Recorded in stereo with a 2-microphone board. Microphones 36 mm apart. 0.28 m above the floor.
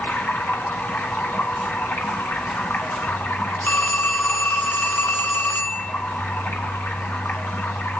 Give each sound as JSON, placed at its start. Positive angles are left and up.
{"t": 0.0, "sound": "running water", "side_deg": 65, "distance_m": 1.8}
{"t": 3.6, "sound": "a phone ringing", "side_deg": 60, "distance_m": 2.0}